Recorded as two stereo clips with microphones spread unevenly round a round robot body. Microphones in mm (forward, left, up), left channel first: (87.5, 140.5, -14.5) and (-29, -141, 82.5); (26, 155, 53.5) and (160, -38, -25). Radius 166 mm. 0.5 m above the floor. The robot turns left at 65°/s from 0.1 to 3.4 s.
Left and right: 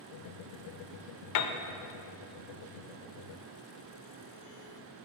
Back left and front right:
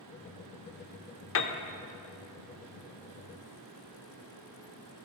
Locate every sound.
1.4 s a piano: 85° left, 0.6 m; by 1.5 s 70° left, 0.6 m